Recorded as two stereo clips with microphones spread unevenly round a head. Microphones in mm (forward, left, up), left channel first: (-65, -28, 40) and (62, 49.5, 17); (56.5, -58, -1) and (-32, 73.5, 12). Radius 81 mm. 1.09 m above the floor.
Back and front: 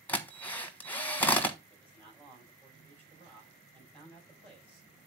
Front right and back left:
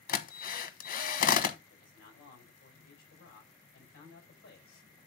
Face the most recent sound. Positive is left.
turn(degrees=-30)